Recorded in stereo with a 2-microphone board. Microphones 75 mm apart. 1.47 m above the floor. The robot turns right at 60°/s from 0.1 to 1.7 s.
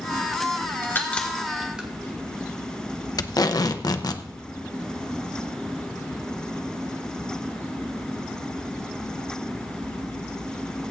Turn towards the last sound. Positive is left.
turn(degrees=60)  # may be behind; listen again after turning